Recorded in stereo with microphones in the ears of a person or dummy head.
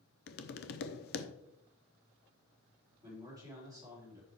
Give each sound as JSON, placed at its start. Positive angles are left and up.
{"t": 0.3, "sound": "tapping", "side_deg": 50, "distance_m": 0.7}
{"t": 3.0, "sound": "a man speaking", "side_deg": -20, "distance_m": 3.5}